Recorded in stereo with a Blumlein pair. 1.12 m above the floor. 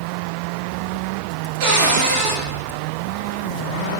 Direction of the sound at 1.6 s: 45° right.